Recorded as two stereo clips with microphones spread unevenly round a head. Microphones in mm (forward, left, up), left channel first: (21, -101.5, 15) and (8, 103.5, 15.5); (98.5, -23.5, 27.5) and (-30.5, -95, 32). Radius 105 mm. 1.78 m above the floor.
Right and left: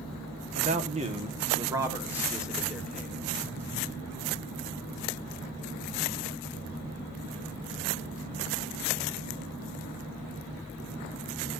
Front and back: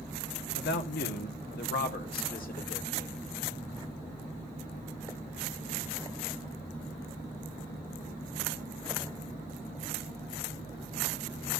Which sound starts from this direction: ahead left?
A man speaking, at 0.6 s.